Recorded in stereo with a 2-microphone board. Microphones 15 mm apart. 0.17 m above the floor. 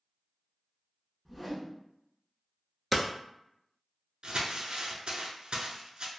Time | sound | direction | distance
1.2 | a whoosh | 5° right (ahead or behind) | 1.1 m
2.9 | hammering | 5° right (ahead or behind) | 0.6 m
4.2 | crumpling | 65° right (ahead or behind) | 0.7 m